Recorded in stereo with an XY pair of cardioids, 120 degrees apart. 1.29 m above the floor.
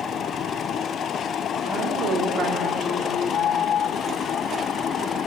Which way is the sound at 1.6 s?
65° right.